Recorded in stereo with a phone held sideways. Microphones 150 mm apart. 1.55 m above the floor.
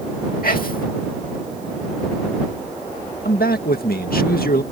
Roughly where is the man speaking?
Left.